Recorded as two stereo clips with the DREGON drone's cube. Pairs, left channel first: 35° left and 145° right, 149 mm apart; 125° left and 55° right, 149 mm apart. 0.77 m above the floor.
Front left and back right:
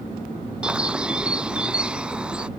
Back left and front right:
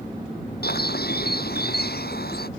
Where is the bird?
130° left.